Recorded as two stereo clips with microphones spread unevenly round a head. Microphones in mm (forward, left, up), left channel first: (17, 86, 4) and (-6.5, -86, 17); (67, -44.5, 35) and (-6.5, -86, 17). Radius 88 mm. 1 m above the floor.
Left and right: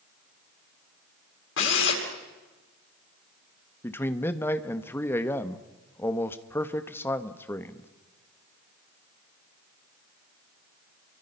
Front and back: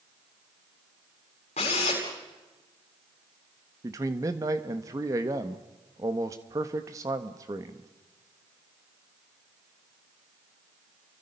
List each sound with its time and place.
1.6 s a drill: 65° left, 7.5 m
3.8 s a man speaking: 160° left, 1.3 m